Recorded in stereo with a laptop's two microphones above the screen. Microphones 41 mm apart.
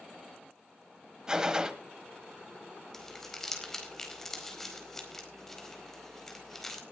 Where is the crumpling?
10° left (ahead or behind), 4.5 m.